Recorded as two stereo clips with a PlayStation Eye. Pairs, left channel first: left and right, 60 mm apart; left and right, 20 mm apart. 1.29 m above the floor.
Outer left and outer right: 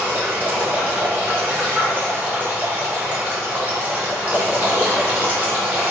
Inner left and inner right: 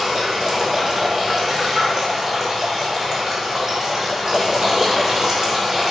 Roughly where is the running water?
Right.